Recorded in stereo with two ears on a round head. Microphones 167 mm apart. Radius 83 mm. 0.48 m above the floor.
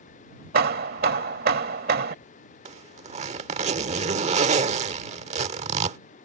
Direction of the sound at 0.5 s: 50° right (ahead or behind).